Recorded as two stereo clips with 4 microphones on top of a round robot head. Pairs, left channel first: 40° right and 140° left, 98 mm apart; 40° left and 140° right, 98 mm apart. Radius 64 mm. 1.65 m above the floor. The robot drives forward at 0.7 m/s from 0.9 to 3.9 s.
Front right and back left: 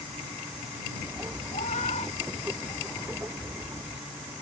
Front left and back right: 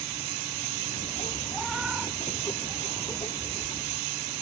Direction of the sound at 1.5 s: 45° right.